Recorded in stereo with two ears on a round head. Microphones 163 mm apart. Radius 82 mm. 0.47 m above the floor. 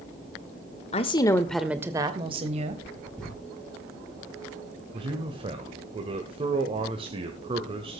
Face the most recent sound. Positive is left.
turn(degrees=-30)  # may be behind; listen again after turning